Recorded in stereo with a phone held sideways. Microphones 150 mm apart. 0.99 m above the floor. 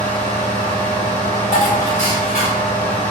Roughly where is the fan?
Left.